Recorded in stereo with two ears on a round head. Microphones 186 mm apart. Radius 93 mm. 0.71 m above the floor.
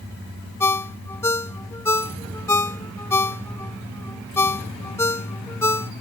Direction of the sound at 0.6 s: 15° left (ahead or behind).